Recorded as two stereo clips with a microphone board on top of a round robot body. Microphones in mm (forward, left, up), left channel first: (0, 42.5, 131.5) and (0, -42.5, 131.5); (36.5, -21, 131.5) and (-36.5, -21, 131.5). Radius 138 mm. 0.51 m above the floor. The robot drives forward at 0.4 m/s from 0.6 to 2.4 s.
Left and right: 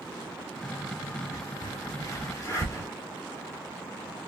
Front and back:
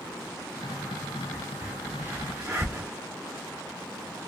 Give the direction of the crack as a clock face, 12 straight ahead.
8 o'clock.